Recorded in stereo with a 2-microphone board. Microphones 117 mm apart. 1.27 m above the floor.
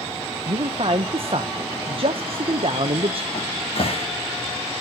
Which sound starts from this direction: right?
A man speaking, at 0.5 s.